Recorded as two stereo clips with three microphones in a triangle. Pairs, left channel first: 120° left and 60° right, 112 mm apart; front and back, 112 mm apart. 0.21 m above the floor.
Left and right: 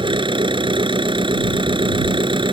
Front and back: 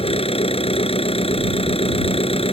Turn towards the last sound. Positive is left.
turn(degrees=-20)